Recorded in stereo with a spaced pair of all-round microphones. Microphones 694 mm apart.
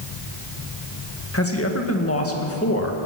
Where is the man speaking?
20° left (ahead or behind), 1.7 m.